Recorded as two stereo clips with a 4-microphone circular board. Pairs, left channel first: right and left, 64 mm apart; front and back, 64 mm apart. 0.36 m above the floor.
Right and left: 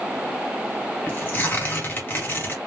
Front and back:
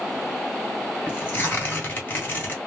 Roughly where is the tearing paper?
Ahead right.